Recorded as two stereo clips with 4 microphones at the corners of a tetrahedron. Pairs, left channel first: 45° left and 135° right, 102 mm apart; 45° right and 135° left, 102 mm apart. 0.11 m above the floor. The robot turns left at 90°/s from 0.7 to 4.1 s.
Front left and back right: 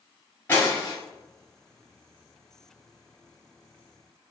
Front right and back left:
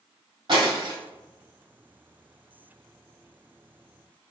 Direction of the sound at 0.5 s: 110° left.